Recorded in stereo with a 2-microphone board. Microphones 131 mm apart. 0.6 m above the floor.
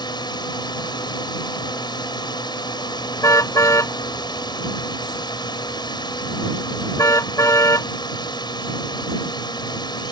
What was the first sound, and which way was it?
A drone, 35° left (ahead or behind).